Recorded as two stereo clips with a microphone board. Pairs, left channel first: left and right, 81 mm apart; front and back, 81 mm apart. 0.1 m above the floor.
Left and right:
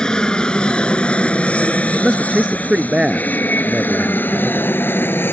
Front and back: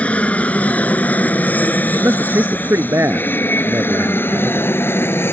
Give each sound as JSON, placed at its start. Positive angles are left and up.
{"t": 0.0, "sound": "an aircraft", "azimuth_deg": 30}
{"t": 1.9, "sound": "a man speaking", "azimuth_deg": -165}